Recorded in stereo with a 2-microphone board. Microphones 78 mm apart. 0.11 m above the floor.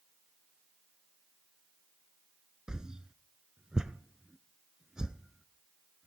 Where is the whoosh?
10° right (ahead or behind), 0.6 m.